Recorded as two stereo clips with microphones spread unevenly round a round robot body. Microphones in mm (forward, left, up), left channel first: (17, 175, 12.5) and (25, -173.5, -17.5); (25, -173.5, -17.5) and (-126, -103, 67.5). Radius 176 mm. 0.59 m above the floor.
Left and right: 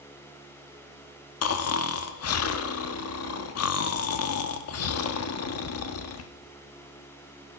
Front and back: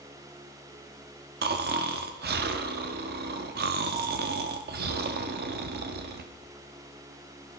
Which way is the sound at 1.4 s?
115° left.